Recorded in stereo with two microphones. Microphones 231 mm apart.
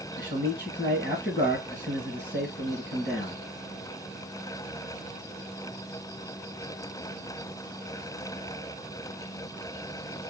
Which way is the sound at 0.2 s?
40° left (ahead or behind).